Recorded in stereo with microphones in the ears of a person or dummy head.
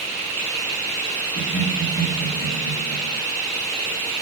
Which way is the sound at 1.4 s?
45° left (ahead or behind).